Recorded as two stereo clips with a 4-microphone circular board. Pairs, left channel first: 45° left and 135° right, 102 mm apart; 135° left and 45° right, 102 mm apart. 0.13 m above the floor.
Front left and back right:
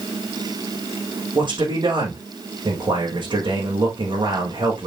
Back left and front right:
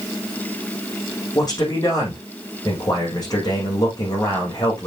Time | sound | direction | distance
1.4 | a man speaking | 175° right | 6.5 m